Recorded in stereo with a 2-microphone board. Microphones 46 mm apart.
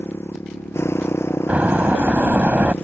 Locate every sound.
0.0 s a motorcycle: 70° left (ahead or behind)
1.5 s a door slam: 35° right (ahead or behind)